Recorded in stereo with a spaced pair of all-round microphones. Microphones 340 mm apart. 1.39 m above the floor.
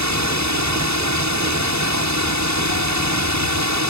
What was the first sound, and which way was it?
A drone, 55° right (ahead or behind).